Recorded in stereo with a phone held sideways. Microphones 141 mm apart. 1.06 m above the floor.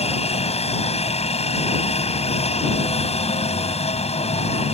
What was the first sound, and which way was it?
A helicopter, 50° left (ahead or behind).